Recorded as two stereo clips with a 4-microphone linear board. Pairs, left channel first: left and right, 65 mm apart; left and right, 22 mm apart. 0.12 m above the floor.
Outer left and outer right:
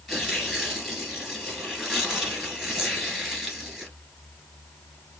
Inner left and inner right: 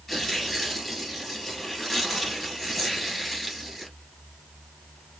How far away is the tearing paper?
About 2 m.